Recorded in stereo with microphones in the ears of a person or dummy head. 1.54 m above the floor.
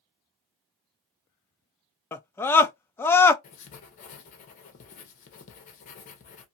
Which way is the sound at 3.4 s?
40° left (ahead or behind).